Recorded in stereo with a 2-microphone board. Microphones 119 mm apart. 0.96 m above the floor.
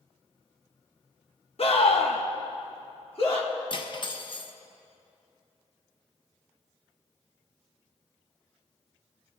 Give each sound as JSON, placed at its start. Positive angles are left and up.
{"t": 1.6, "sound": "a scream", "side_deg": 55, "distance_m": 1.0}
{"t": 3.7, "sound": "cutlery clinking", "side_deg": 45, "distance_m": 0.6}